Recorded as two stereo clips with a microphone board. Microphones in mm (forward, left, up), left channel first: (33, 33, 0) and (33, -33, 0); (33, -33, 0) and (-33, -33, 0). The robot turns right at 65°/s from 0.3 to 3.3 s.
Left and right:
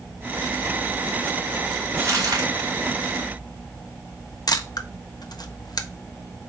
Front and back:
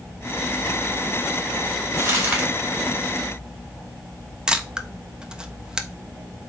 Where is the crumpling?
140° right, 2.5 m; by 2.5 s 110° right, 2.5 m.